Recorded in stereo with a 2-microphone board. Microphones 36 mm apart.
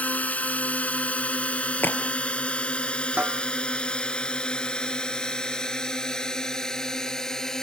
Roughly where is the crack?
Left.